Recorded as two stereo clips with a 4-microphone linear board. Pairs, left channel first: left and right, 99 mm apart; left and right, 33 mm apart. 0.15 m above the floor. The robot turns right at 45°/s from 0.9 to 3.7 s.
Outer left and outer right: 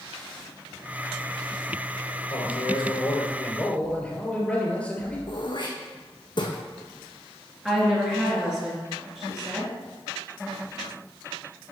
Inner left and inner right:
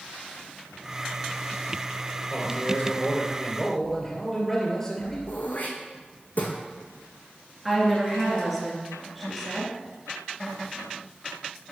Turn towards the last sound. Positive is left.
turn(degrees=-5)  # may be behind; listen again after turning